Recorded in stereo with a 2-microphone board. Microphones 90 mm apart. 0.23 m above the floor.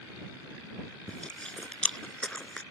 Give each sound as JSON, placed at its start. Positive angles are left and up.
{"t": 1.1, "sound": "chewing", "side_deg": 10}